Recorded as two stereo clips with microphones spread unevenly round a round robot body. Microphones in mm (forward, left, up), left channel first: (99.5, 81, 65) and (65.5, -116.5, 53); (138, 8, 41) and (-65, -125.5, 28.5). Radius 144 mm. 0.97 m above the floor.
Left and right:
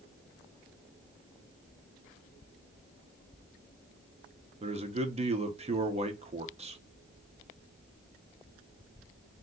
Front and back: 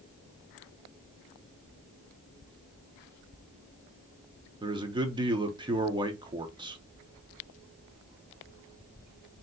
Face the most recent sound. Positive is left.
turn(degrees=-95)